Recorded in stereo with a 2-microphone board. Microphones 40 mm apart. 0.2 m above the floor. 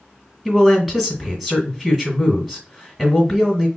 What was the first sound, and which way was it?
A man speaking, 10° right (ahead or behind).